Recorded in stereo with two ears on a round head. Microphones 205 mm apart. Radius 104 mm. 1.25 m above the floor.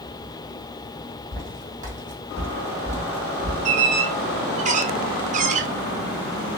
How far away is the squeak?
About 0.6 m.